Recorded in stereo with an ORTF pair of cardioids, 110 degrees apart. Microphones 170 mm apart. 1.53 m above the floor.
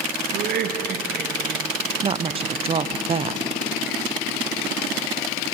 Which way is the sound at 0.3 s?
65° right.